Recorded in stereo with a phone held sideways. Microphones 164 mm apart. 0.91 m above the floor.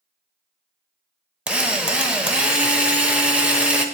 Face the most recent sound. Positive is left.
turn(degrees=-5)  # may be behind; listen again after turning